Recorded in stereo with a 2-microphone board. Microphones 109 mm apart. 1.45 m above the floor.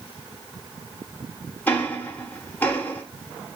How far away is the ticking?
About 1.0 m.